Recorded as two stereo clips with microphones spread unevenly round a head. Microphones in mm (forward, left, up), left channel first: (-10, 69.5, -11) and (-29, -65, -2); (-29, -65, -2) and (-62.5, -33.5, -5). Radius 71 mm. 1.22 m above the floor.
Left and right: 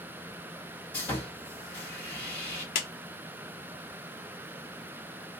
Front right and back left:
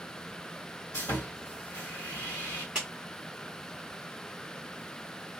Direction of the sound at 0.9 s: 5° left.